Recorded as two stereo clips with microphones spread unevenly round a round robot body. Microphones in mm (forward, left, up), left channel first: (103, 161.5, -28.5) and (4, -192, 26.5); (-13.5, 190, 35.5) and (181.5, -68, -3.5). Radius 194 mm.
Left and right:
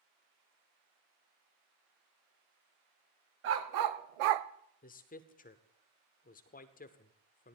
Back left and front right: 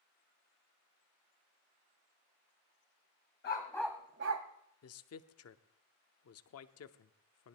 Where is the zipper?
I don't hear a zipper.